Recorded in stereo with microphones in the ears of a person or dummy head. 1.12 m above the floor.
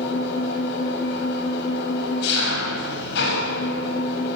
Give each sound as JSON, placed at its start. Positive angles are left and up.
{"t": 0.0, "sound": "an engine running", "side_deg": 65, "distance_m": 6.0}